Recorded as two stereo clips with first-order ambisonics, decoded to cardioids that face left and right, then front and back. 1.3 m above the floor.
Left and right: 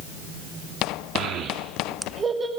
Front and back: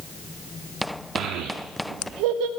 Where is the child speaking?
135° right, 1.7 m; by 2.5 s 170° right, 1.6 m.